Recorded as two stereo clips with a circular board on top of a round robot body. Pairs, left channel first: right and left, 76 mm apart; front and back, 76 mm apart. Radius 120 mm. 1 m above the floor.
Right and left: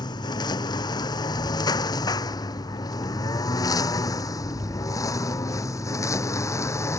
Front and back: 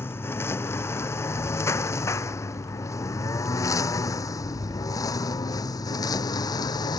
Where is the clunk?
I don't hear a clunk.